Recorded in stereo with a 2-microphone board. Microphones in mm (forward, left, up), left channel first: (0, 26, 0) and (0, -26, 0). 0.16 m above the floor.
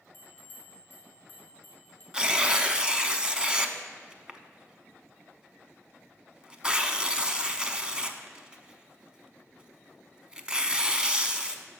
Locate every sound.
0.1 s a bell: 35° left (ahead or behind), 2.5 m
2.1 s tearing paper: 15° right (ahead or behind), 0.6 m